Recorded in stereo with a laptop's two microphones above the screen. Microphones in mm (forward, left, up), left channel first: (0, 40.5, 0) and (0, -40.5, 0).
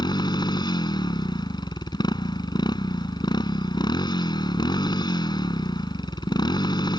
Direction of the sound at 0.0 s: 60° left (ahead or behind).